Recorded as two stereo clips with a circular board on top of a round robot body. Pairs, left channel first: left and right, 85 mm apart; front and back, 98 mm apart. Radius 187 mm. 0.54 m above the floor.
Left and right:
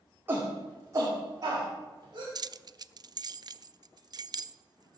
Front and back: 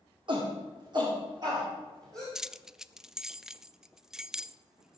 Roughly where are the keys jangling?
Right.